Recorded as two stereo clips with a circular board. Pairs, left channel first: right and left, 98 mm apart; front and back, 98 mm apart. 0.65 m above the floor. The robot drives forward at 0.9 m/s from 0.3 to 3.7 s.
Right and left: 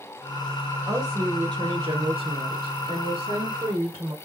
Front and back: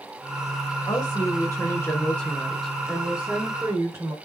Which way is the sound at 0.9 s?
45° left.